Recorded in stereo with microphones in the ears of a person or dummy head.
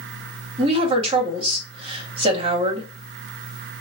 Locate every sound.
0.6 s a woman speaking: 30° right (ahead or behind), 2.5 m